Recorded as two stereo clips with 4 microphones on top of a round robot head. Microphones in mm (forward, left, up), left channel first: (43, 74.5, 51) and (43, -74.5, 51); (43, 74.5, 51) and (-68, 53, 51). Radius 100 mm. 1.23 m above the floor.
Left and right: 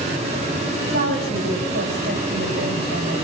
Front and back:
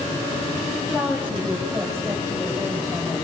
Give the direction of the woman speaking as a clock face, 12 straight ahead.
2 o'clock.